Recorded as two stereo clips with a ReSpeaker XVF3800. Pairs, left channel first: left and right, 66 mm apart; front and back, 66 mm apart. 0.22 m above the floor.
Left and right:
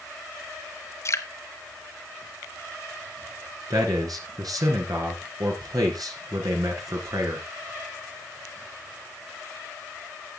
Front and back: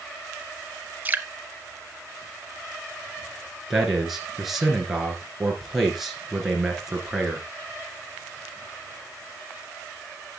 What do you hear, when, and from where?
1.1 s dripping: 120° left, 0.6 m
3.7 s a man speaking: 95° right, 2.5 m